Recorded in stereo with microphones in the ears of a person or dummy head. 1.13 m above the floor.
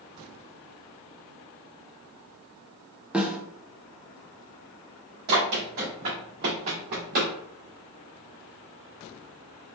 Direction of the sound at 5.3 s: 40° right (ahead or behind).